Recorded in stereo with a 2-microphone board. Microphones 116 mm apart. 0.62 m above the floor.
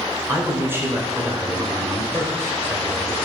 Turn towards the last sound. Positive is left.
turn(degrees=-20)  # may be behind; listen again after turning